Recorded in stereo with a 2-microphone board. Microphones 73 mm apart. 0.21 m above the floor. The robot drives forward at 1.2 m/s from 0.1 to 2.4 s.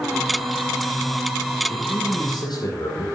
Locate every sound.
1.7 s a man speaking: 70° left (ahead or behind), 6.5 m; by 3.1 s 75° left (ahead or behind), 6.5 m